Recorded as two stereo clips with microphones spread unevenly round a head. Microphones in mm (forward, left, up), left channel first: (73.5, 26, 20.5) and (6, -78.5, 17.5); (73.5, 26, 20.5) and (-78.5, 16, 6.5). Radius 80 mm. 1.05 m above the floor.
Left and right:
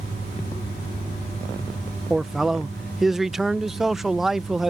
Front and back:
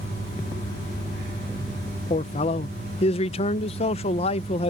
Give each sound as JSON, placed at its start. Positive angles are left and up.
{"t": 2.1, "sound": "a man speaking", "azimuth_deg": -35}